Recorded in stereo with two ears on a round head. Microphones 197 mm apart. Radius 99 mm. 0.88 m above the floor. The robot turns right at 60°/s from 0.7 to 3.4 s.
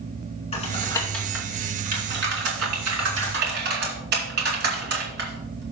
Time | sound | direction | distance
0.5 | typing on a keyboard | 30° left (ahead or behind) | 3 m